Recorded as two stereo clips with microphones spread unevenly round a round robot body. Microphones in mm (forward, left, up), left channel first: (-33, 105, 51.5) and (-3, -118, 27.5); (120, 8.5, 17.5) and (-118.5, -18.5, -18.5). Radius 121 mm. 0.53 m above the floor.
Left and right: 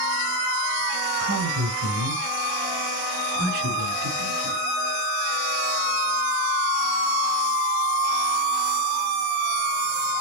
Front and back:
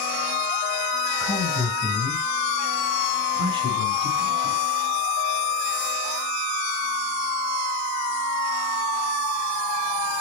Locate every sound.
1.2 s a man speaking: 75° right, 3 m; by 4.6 s 110° right, 5 m